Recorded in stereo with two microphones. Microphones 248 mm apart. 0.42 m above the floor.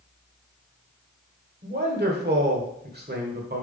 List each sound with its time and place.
1.6 s a man speaking: 40° right (ahead or behind), 1.5 m